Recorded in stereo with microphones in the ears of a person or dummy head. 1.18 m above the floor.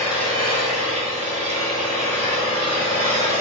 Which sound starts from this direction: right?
An engine running, at 0.0 s.